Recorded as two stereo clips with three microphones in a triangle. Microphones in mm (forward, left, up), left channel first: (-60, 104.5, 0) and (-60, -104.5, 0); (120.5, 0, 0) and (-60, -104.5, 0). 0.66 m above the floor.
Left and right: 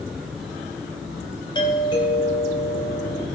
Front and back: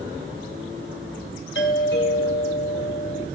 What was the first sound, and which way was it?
A doorbell, 25° left.